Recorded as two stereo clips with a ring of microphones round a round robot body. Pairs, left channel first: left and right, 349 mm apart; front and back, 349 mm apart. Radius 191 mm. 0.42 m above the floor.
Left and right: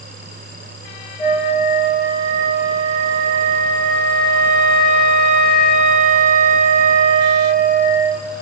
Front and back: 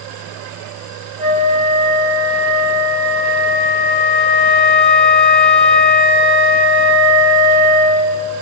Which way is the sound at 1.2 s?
5° right.